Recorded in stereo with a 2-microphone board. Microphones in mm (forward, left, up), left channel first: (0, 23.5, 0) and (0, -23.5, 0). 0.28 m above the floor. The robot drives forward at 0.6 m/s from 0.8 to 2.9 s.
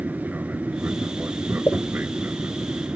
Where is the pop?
50° left (ahead or behind).